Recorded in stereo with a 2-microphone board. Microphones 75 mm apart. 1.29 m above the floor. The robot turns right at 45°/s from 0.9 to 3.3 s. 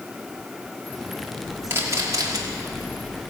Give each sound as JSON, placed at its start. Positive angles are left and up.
{"t": 1.7, "sound": "a camera shutter", "azimuth_deg": -150, "distance_m": 2.0}